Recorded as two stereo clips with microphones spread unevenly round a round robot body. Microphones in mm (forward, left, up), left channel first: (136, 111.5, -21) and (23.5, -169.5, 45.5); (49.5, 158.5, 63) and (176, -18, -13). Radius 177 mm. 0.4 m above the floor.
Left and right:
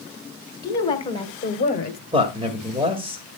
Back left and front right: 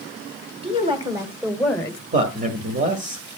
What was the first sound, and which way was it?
A woman speaking, 5° right.